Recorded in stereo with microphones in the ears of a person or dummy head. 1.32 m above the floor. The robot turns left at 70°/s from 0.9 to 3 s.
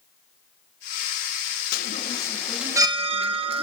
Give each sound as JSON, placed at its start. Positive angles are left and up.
{"t": 1.7, "sound": "a chime", "azimuth_deg": 60, "distance_m": 1.0}